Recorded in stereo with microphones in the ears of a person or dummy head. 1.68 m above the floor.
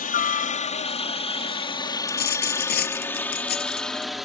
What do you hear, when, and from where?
0.0 s a helicopter: 35° left (ahead or behind); by 4.3 s 5° right (ahead or behind)
2.1 s a dropped coin: 45° left (ahead or behind)